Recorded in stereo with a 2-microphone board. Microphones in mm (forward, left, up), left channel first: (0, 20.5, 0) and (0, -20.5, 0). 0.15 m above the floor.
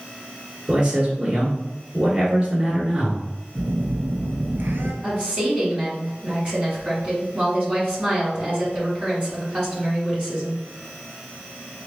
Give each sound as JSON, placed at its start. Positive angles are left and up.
{"t": 0.7, "sound": "a man speaking", "side_deg": -25, "distance_m": 1.4}
{"t": 3.5, "sound": "a phone buzzing", "side_deg": -65, "distance_m": 0.8}
{"t": 5.0, "sound": "a woman speaking", "side_deg": -25, "distance_m": 1.8}